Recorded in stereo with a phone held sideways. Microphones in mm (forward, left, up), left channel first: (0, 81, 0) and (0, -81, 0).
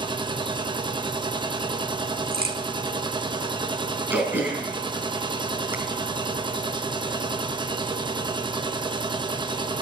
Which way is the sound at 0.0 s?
30° right (ahead or behind).